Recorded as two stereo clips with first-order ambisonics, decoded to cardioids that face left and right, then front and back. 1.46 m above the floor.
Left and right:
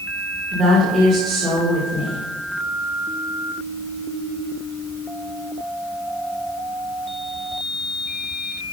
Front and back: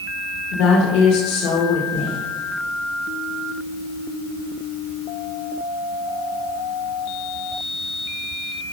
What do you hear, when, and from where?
0.5 s a woman speaking: 10° right, 1.9 m